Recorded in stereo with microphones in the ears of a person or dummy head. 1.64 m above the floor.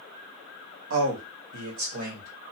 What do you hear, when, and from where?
0.9 s a man speaking: 70° right (ahead or behind), 1.4 m; by 2.3 s 45° right (ahead or behind), 1.9 m